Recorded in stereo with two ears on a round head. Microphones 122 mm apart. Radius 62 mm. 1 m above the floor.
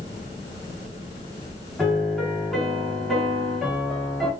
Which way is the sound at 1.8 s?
Centre (ahead or behind).